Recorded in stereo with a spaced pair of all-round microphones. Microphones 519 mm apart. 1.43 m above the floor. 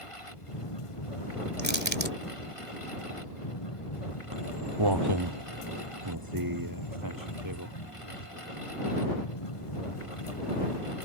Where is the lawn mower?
75° left (ahead or behind).